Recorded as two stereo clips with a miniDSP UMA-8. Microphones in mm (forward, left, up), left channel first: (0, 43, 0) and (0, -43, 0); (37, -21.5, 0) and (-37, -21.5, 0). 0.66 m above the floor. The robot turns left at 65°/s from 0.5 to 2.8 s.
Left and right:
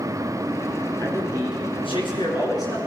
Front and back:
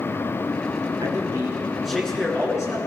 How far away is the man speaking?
About 8 m.